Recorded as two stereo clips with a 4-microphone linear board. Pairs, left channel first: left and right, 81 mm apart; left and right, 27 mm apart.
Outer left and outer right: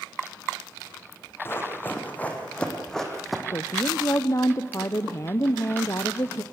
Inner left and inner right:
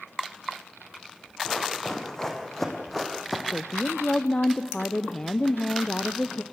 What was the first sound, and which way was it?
Running footsteps, 30° left (ahead or behind).